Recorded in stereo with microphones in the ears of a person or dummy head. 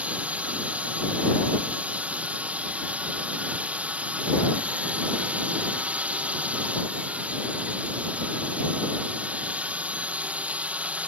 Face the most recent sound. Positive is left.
turn(degrees=-10)  # may be behind; listen again after turning